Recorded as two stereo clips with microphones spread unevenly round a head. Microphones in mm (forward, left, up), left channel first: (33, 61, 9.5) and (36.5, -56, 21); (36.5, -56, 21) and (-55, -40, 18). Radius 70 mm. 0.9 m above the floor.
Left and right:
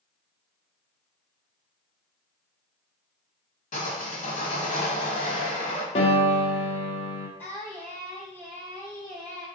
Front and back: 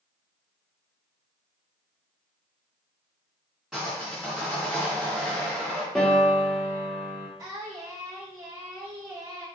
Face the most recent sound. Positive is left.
turn(degrees=150)